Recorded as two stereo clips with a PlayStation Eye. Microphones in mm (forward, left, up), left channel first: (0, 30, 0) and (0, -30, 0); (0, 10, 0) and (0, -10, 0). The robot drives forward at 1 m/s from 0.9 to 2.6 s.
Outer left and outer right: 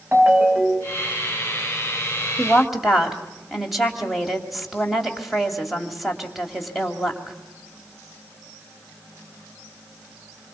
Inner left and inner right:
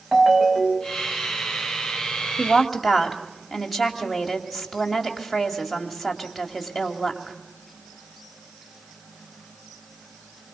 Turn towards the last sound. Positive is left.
turn(degrees=0)  # may be behind; listen again after turning